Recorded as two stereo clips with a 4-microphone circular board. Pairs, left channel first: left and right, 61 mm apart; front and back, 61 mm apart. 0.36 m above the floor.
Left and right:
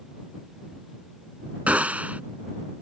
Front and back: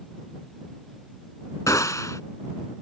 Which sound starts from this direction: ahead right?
A gunshot, at 1.7 s.